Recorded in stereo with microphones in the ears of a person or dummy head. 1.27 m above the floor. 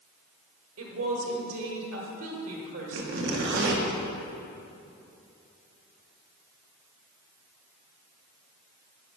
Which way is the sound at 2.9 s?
60° right (ahead or behind).